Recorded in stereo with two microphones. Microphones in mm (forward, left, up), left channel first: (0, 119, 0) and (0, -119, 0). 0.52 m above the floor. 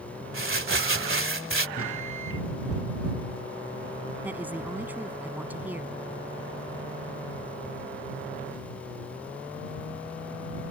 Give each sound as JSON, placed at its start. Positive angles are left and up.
{"t": 0.3, "sound": "crumpling", "side_deg": -60}
{"t": 1.8, "sound": "a microwave", "side_deg": 65}
{"t": 4.2, "sound": "a woman speaking", "side_deg": -5}